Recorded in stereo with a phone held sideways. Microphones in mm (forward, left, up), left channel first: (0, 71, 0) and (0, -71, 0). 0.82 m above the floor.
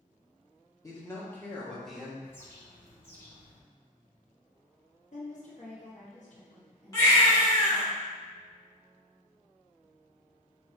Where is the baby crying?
25° left (ahead or behind), 1.3 m.